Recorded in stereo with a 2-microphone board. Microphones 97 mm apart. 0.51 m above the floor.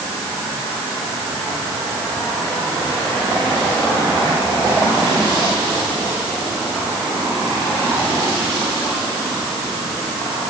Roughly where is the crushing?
No crushing in this recording.